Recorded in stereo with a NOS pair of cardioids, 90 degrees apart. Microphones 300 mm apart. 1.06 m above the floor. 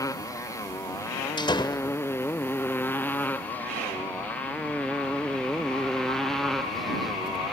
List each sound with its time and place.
0.0 s a motorcycle: 10° left; by 7.5 s straight ahead
1.4 s a door slam: 15° left